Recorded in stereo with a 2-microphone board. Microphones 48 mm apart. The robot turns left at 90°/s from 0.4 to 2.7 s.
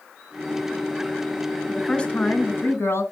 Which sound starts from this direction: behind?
A woman speaking, at 1.7 s.